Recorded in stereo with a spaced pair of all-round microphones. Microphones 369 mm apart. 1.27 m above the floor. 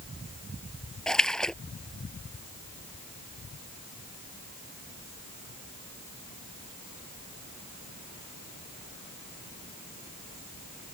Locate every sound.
1.1 s a splash: centre (ahead or behind)